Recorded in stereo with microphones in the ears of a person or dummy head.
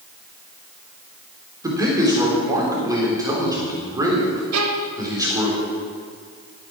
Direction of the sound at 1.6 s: 20° right (ahead or behind).